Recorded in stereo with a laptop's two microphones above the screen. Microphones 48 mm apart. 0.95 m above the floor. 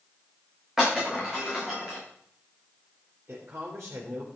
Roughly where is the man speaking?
Right.